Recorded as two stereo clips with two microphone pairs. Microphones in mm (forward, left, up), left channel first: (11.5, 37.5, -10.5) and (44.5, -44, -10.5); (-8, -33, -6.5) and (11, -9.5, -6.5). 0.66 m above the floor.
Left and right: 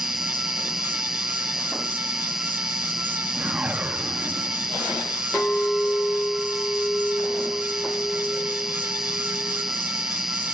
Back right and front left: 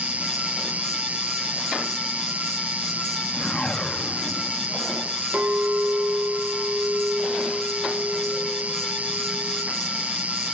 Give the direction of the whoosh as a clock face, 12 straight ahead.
4 o'clock.